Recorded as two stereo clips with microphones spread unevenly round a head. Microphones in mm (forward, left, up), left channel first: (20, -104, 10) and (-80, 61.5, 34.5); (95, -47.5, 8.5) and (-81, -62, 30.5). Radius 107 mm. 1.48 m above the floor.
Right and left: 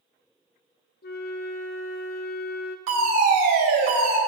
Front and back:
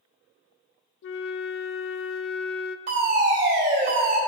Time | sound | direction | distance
1.0 | a flute | 5° right | 0.6 m
2.9 | a fire alarm | 125° left | 4 m